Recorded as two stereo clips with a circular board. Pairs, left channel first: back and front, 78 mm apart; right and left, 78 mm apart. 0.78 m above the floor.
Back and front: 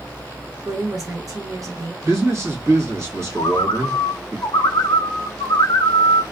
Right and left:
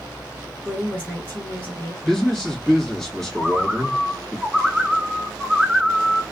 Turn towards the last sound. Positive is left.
turn(degrees=175)